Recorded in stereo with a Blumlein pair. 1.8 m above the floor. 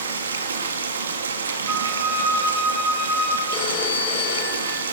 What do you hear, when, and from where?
0.0 s running water: 70° right, 2.5 m
1.7 s a flute: 20° right, 7 m
3.5 s a phone ringing: 35° left, 4.5 m